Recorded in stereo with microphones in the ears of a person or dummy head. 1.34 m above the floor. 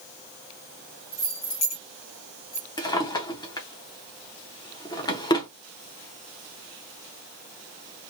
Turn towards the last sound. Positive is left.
turn(degrees=25)  # may be behind; listen again after turning